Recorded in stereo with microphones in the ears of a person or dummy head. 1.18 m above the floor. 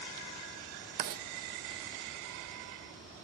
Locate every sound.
1.0 s writing: 40° right (ahead or behind), 0.5 m